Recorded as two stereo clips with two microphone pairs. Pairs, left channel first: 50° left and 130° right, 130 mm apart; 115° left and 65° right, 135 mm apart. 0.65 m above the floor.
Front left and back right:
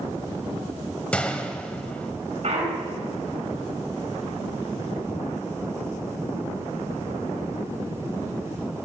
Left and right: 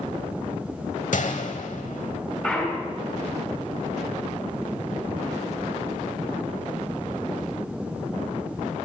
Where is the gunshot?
130° left, 1.1 m.